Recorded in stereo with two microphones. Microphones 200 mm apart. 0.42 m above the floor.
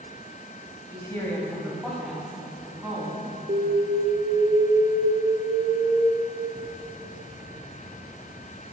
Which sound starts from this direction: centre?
A woman speaking, at 0.9 s.